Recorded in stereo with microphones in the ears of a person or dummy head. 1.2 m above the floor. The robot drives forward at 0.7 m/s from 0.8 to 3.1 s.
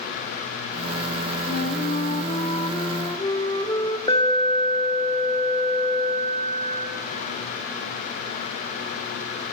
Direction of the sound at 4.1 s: 25° left (ahead or behind).